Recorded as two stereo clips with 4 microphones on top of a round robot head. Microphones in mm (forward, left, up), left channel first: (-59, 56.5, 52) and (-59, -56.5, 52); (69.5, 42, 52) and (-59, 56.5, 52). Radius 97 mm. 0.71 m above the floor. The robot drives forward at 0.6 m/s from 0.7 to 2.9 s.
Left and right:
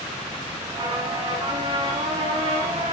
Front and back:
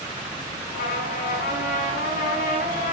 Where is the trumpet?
30° right, 6 m; by 2.9 s 35° right, 5 m.